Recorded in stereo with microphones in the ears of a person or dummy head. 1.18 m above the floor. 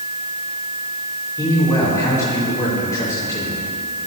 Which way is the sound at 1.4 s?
20° left (ahead or behind).